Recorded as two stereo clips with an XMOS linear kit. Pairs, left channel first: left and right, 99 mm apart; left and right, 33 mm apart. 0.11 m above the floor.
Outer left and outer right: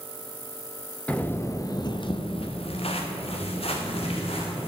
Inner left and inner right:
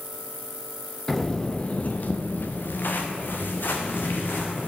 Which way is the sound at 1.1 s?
15° left (ahead or behind).